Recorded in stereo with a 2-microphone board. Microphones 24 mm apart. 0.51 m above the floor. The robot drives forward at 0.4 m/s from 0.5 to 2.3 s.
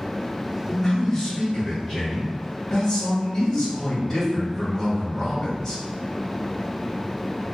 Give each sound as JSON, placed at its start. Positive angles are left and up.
{"t": 0.7, "sound": "a man speaking", "side_deg": 10, "distance_m": 1.1}